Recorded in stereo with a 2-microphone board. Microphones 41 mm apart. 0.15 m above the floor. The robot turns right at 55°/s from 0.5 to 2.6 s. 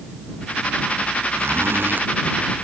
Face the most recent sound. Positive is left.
turn(degrees=-10)